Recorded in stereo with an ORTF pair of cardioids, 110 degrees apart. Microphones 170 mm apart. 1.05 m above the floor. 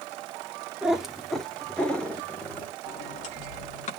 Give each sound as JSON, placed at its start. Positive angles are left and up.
{"t": 0.8, "sound": "a cat meowing", "azimuth_deg": -5, "distance_m": 1.3}
{"t": 2.9, "sound": "a sliding door", "azimuth_deg": 40, "distance_m": 2.0}